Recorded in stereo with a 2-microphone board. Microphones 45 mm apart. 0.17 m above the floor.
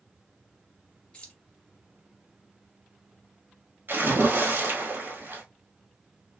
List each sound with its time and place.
1.1 s keys jangling: 25° left (ahead or behind), 1.0 m
3.9 s a splash: 50° right (ahead or behind), 1.2 m